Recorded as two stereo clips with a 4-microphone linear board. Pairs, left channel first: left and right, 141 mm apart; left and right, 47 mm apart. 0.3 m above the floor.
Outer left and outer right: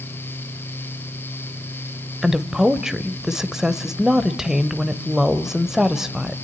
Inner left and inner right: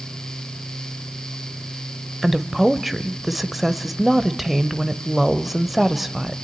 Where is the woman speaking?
5° right (ahead or behind), 0.9 m.